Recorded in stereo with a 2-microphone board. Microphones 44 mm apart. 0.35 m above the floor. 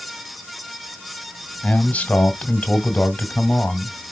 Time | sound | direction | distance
1.6 | a man speaking | 35° left (ahead or behind) | 1.4 m